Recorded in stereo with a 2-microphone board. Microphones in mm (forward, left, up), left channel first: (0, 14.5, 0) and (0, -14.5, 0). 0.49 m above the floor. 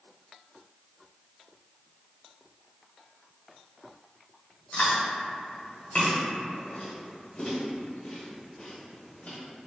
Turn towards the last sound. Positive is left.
turn(degrees=50)  # may be behind; listen again after turning